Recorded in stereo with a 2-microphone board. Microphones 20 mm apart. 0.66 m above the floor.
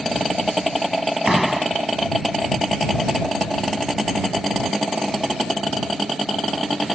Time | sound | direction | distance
1.2 | a door slam | 15° right (ahead or behind) | ?